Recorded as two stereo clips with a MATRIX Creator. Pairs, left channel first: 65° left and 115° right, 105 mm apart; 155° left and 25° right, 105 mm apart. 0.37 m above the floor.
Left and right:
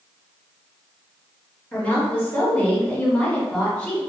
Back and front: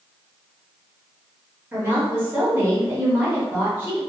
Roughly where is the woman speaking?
Ahead.